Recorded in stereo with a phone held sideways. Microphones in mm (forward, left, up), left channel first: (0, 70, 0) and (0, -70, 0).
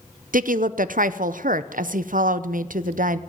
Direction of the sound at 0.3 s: 75° right (ahead or behind).